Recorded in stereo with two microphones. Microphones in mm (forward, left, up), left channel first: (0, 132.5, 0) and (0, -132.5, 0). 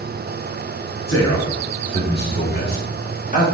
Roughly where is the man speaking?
Left.